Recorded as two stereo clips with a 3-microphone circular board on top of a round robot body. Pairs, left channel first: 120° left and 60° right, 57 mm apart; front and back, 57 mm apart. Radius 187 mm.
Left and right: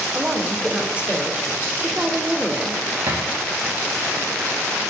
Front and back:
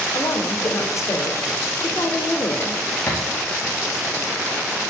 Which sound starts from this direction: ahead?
A woman speaking, at 0.1 s.